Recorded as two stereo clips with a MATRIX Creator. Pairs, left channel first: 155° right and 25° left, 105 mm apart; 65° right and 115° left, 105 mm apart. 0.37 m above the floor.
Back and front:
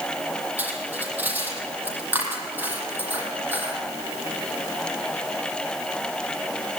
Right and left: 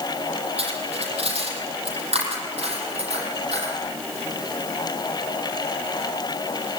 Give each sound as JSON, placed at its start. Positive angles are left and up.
{"t": 0.6, "sound": "cutlery clinking", "azimuth_deg": 95, "distance_m": 7.0}